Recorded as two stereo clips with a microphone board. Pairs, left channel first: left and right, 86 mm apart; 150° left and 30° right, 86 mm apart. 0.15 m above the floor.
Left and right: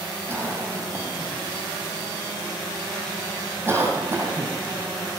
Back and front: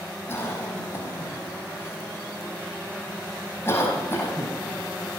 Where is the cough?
155° right, 5 m.